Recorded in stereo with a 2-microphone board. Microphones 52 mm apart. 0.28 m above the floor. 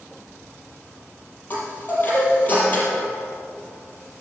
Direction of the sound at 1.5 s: 30° left (ahead or behind).